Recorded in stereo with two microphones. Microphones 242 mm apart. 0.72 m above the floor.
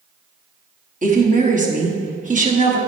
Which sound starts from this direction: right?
A woman speaking, at 1.0 s.